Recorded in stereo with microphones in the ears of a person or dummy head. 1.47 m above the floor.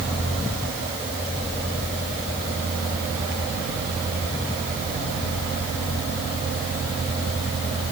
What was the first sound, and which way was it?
Only background noise.